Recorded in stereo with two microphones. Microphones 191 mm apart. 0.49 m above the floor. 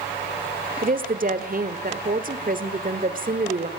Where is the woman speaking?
50° right (ahead or behind), 1.6 m.